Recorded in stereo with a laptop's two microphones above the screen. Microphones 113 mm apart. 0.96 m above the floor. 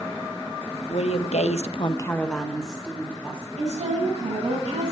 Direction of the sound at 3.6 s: 80° right.